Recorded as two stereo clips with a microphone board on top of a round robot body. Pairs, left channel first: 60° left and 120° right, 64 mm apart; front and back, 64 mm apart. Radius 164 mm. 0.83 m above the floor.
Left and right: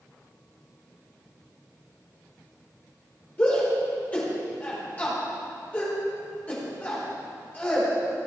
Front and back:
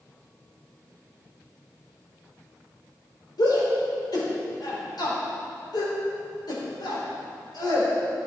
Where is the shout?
5° right, 4.5 m.